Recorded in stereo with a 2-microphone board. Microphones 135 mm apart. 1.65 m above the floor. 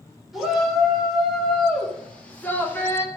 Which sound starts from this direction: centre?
A shout, at 0.3 s.